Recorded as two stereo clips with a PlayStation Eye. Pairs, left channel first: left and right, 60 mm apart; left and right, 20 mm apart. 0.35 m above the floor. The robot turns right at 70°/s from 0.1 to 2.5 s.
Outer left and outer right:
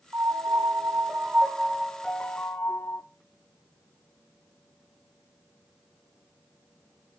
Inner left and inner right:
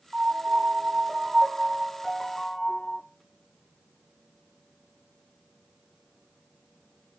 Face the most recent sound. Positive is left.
turn(degrees=45)